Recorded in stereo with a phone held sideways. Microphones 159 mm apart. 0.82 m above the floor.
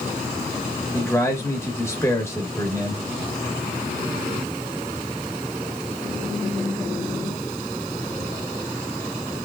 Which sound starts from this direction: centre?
A man speaking, at 0.9 s.